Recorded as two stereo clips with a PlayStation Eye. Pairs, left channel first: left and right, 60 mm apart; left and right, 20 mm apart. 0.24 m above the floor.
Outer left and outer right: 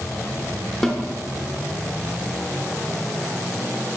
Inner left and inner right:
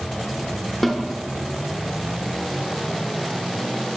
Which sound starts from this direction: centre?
A snare drum, at 0.8 s.